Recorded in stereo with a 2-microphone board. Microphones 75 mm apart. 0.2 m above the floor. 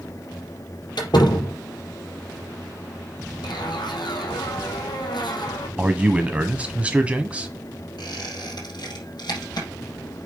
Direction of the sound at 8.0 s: 65° left (ahead or behind).